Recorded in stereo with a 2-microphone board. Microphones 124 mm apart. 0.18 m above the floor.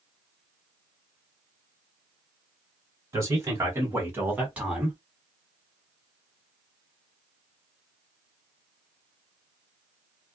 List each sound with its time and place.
3.1 s a man speaking: 25° right (ahead or behind), 1.5 m; by 5.0 s 5° right (ahead or behind), 1.6 m